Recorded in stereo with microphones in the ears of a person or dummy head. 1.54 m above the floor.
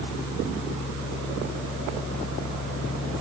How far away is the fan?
About 1.5 m.